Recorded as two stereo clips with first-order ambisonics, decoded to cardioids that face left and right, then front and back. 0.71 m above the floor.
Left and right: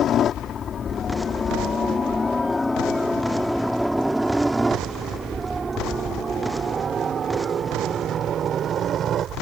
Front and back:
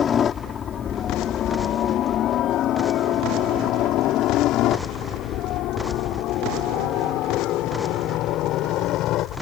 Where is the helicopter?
50° left; by 9.4 s 35° right.